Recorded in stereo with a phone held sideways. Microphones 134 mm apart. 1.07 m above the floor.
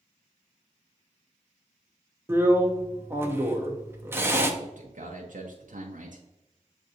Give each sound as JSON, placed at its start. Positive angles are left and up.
{"t": 2.3, "sound": "a drill", "side_deg": -15, "distance_m": 0.6}
{"t": 4.6, "sound": "a man speaking", "side_deg": -75, "distance_m": 0.7}